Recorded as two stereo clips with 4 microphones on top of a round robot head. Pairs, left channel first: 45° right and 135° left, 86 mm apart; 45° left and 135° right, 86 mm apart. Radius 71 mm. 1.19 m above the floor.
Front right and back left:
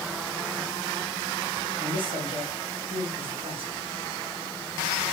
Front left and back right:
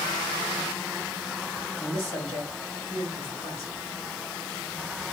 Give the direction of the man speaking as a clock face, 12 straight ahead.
8 o'clock.